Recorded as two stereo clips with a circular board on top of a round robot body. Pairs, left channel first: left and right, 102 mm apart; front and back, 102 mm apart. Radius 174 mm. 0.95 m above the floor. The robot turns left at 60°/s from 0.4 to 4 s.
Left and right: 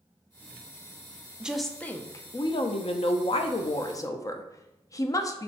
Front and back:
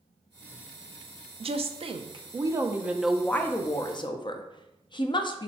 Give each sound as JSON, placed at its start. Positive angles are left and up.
{"t": 1.4, "sound": "a woman speaking", "azimuth_deg": -170, "distance_m": 0.5}